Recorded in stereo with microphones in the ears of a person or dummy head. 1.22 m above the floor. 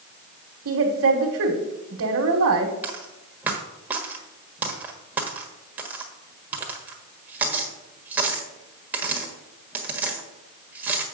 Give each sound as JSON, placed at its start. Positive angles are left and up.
{"t": 0.7, "sound": "a woman speaking", "side_deg": -70, "distance_m": 1.3}
{"t": 2.8, "sound": "a dropped coin", "side_deg": -10, "distance_m": 1.3}